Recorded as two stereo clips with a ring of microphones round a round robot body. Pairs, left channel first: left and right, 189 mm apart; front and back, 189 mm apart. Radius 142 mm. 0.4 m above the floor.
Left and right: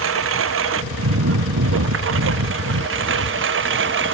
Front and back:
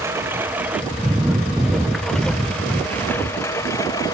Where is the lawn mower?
100° right; by 4.1 s 80° right.